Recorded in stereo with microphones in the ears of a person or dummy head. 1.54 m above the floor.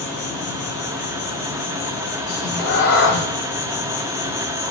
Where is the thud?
I don't hear a thud.